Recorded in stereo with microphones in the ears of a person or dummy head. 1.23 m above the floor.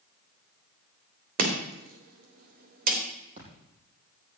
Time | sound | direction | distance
1.4 | chopping | 55° right (ahead or behind) | 3 m
3.4 | a splash | 45° right (ahead or behind) | 7.5 m